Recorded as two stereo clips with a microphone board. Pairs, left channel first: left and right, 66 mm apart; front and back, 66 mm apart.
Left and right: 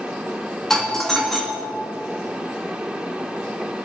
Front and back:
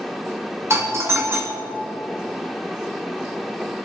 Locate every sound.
0.7 s a doorbell: 170° left, 2.5 m